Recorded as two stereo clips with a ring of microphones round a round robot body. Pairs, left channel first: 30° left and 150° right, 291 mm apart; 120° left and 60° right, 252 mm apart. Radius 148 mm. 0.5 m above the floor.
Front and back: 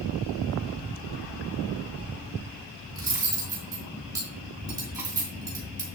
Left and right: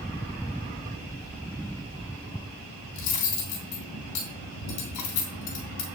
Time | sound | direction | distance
2.9 | cutlery clinking | 130° left | 3 m